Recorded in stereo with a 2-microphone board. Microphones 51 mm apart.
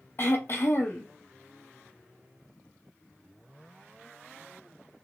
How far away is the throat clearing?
About 0.8 m.